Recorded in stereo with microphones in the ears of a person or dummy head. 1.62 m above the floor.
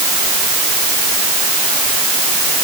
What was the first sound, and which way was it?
Only background noise.